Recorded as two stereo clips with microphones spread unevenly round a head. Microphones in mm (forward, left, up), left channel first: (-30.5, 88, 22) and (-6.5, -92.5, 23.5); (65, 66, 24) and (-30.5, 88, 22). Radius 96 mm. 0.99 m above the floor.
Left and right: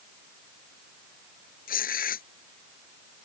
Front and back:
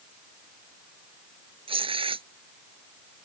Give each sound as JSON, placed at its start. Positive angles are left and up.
{"t": 1.7, "sound": "tearing paper", "azimuth_deg": 140}